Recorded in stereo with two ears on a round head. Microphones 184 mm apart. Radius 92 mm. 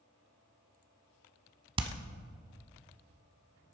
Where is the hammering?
25° right (ahead or behind), 0.9 m.